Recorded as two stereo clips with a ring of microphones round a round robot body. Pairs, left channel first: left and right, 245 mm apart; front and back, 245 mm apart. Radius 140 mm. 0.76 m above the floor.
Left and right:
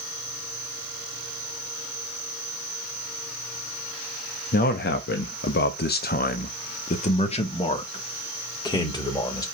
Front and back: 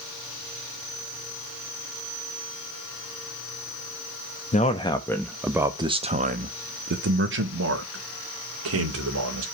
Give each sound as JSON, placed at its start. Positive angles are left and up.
{"t": 4.5, "sound": "a man speaking", "azimuth_deg": 50, "distance_m": 1.0}